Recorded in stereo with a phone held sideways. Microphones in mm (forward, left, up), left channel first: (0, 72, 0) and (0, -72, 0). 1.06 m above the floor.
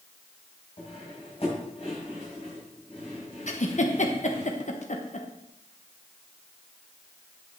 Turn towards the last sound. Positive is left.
turn(degrees=55)  # may be behind; listen again after turning